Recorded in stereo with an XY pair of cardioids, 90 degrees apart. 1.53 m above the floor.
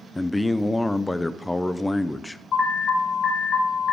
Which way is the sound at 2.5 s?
60° left.